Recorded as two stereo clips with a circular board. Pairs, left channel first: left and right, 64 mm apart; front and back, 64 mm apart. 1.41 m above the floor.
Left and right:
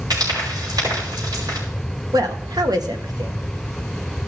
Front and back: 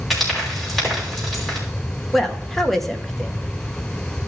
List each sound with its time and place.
0.1 s frying: 85° right, 6.5 m
2.1 s a woman speaking: 85° right, 1.5 m